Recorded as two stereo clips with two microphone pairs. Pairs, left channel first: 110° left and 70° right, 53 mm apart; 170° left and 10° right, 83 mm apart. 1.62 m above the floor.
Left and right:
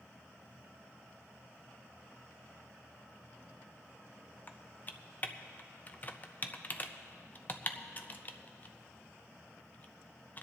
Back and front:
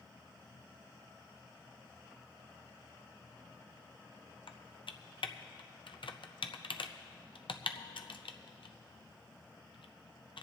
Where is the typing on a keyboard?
170° left, 0.6 m.